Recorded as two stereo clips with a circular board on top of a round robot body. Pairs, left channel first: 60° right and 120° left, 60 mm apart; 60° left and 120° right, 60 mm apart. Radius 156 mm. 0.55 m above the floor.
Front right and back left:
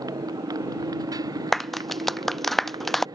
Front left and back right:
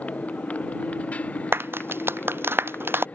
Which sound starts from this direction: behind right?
A clap, at 1.5 s.